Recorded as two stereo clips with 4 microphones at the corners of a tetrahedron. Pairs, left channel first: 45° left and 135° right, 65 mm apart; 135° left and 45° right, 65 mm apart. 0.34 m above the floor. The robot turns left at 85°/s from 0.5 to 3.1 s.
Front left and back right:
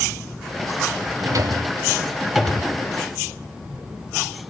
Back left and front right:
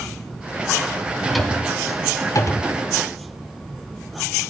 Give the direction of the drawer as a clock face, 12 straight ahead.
4 o'clock.